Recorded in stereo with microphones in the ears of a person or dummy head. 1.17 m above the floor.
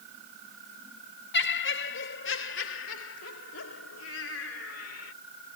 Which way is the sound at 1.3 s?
55° left (ahead or behind).